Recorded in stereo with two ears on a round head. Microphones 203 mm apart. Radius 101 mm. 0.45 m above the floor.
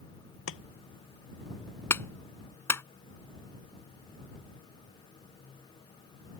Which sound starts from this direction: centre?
A clap, at 1.9 s.